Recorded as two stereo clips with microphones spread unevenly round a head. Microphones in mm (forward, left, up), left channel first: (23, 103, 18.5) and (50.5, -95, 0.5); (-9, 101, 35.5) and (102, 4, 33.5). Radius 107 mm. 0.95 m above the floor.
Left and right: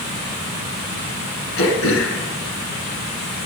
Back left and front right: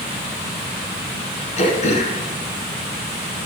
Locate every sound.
1.6 s throat clearing: 105° left, 1.8 m